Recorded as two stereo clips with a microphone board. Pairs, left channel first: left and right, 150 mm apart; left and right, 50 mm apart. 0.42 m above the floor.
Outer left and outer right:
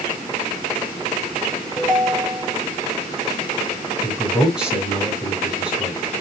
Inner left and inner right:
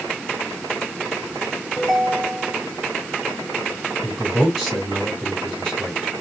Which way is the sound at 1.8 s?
5° left (ahead or behind).